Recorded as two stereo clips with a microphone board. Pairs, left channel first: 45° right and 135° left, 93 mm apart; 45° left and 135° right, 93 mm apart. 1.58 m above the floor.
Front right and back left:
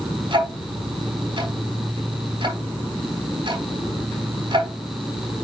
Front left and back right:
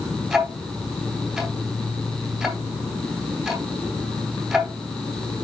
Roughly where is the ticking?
Behind left.